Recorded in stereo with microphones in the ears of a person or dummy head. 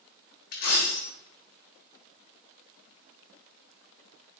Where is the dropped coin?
45° left (ahead or behind), 1.2 m.